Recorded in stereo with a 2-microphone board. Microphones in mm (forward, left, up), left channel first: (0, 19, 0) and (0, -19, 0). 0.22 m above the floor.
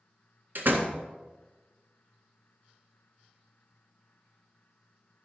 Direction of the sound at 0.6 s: 55° right (ahead or behind).